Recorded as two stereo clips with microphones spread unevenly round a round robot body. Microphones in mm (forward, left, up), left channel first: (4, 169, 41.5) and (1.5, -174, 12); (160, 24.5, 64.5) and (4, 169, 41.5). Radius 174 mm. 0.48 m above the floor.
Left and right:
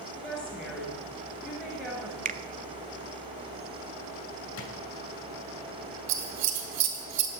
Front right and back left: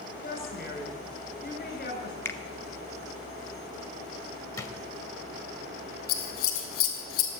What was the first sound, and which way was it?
A woman speaking, straight ahead.